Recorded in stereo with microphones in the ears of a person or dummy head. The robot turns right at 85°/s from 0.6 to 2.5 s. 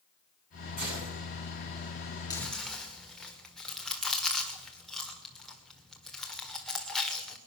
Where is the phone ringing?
I don't hear a phone ringing.